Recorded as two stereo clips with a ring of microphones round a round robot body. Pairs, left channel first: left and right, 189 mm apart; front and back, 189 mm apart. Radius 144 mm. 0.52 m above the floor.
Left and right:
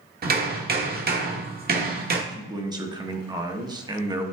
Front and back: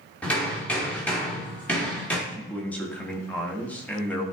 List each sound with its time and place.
0.2 s hammering: 80° right, 1.3 m
2.3 s a man speaking: 70° right, 1.1 m